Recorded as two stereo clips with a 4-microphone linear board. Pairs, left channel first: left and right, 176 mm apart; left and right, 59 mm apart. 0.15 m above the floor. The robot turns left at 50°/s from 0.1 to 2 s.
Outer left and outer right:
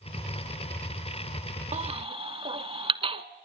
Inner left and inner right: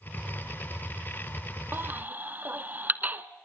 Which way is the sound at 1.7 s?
40° right (ahead or behind).